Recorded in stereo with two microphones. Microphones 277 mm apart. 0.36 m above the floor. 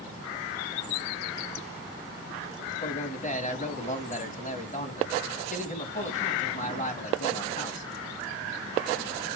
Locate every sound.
2.7 s a man speaking: 25° left (ahead or behind), 2 m